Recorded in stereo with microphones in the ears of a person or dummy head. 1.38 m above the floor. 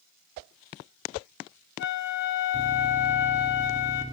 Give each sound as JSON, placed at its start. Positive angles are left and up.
{"t": 1.8, "sound": "a flute", "side_deg": 55, "distance_m": 1.3}